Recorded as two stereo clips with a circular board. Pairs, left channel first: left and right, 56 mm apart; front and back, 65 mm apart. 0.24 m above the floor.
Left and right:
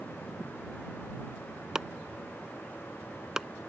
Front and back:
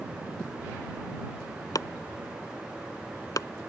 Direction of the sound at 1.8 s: 10° right.